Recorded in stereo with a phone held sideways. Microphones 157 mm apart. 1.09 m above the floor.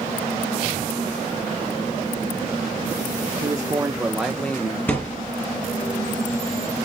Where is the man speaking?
25° right (ahead or behind), 1.3 m; by 4.8 s 20° left (ahead or behind), 1.0 m.